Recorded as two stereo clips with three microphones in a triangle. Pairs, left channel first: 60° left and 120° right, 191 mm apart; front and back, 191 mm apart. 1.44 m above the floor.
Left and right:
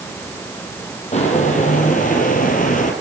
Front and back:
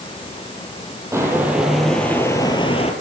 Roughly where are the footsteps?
Left.